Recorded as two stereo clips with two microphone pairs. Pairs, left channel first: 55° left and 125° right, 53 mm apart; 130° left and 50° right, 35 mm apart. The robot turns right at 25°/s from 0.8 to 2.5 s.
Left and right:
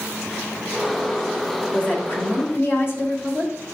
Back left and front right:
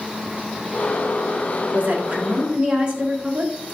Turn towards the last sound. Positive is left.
turn(degrees=10)